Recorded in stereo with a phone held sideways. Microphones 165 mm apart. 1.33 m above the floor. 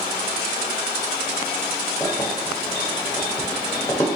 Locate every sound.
2.0 s keys jangling: 20° left (ahead or behind), 1.2 m